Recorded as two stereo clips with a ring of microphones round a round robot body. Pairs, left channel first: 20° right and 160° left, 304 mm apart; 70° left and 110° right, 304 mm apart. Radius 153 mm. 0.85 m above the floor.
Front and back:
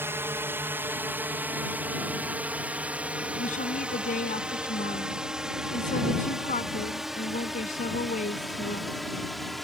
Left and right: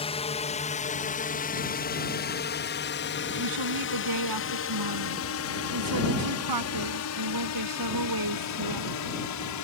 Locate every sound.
0.0 s a drone: 90° left; by 9.6 s 65° left
3.4 s a woman speaking: 90° right